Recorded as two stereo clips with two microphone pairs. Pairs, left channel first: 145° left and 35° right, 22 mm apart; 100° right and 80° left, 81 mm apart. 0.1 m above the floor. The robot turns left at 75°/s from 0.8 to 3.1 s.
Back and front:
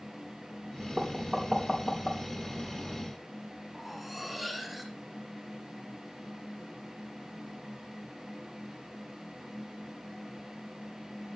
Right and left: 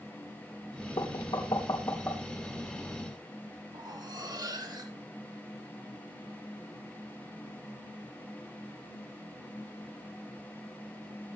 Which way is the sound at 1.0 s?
85° right.